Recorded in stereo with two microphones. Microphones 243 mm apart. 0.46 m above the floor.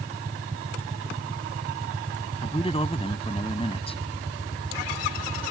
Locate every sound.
2.4 s a man speaking: 25° left (ahead or behind)